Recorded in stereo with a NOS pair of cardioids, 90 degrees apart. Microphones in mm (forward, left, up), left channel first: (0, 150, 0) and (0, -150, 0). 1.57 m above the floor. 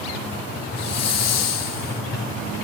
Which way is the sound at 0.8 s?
60° left.